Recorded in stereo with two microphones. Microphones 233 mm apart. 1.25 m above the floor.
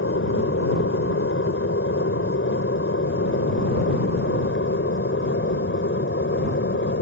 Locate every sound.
0.0 s an aircraft: 70° left (ahead or behind); by 7.0 s 60° left (ahead or behind)